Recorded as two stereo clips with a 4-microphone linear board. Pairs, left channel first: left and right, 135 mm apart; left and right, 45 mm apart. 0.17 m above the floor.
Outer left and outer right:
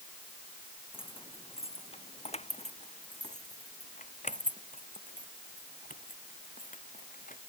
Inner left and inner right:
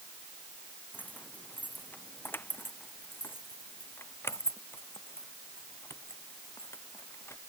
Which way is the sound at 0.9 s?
40° left (ahead or behind).